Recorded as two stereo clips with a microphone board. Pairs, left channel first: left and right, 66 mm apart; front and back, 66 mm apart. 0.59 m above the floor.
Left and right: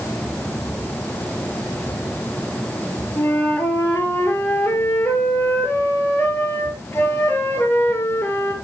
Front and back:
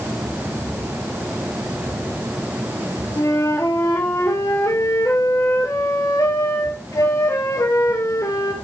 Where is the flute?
35° left, 2.5 m.